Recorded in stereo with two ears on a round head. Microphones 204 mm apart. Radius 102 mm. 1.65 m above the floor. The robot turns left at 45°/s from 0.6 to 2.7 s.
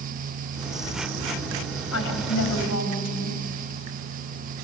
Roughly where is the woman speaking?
Left.